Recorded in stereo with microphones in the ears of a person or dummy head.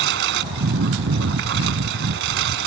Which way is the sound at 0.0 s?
75° right (ahead or behind).